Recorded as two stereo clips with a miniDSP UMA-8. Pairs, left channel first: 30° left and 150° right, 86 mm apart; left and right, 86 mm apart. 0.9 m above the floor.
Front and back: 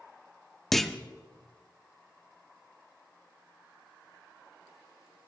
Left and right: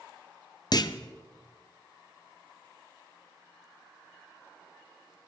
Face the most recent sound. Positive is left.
turn(degrees=120)